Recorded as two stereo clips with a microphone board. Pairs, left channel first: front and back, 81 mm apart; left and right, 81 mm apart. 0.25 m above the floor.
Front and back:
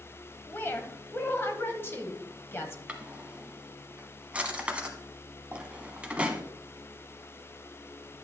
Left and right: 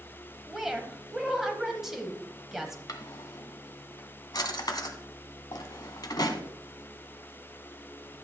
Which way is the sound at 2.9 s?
105° left.